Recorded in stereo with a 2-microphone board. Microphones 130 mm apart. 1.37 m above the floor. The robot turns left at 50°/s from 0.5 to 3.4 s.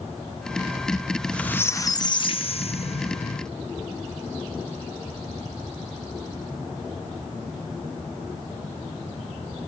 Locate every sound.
1.1 s a squeak: 175° right, 0.9 m; by 3.5 s 70° left, 0.9 m